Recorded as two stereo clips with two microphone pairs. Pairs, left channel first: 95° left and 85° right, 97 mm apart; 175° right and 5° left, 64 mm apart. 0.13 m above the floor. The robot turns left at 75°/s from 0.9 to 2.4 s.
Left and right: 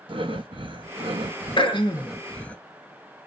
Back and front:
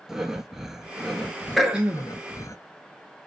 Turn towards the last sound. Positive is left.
turn(degrees=35)